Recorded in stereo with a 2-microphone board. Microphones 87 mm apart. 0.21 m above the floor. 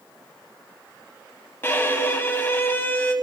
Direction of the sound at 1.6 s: 25° left (ahead or behind).